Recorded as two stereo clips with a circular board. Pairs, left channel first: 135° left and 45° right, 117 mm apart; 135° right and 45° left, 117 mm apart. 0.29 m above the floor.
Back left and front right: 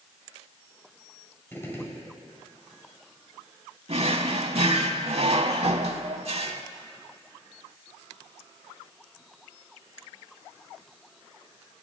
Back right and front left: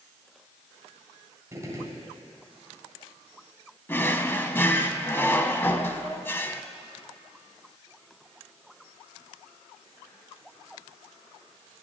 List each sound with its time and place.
1.5 s a gunshot: 80° left, 1.6 m
3.9 s a drawer: 65° right, 0.7 m